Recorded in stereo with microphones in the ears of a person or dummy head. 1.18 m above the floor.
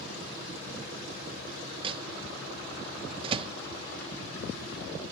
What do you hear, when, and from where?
1.8 s a microwave: 35° right (ahead or behind)